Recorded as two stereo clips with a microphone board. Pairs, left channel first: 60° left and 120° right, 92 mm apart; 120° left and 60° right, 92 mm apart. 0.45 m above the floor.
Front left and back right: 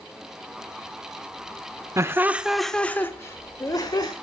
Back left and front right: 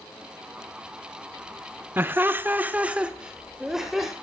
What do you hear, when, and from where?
2.0 s laughter: 105° right, 0.9 m; by 4.1 s 25° left, 1.6 m